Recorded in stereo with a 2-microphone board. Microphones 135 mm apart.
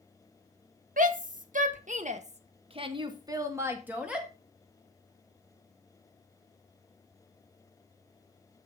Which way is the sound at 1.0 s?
80° right.